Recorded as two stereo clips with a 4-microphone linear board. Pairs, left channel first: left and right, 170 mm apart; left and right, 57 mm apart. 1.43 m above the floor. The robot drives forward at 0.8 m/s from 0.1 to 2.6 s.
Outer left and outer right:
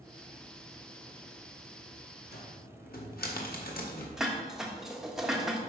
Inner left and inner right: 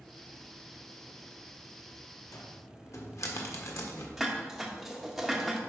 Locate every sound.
2.3 s a cupboard door: 70° left (ahead or behind), 1.4 m; by 4.1 s 65° left (ahead or behind), 1.5 m
4.2 s dishes clattering: centre (ahead or behind), 1.1 m